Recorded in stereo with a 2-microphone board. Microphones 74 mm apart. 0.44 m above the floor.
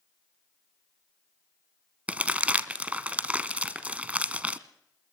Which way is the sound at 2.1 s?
20° right (ahead or behind).